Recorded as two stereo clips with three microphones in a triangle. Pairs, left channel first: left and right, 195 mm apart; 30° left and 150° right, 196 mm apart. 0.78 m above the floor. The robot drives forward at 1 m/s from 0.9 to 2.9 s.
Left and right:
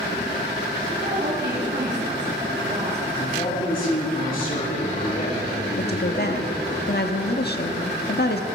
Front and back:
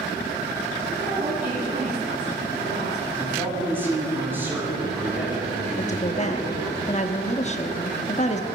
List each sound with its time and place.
1.0 s a woman speaking: 110° right, 7.5 m; by 3.0 s 125° right, 8 m
3.1 s a man speaking: 130° left, 7.5 m
5.8 s a woman speaking: 75° left, 1.3 m